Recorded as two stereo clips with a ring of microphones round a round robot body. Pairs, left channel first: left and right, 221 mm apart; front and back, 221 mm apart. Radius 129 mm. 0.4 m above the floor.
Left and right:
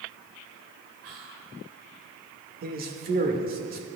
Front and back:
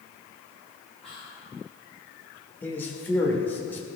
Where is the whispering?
85° right, 3.5 m.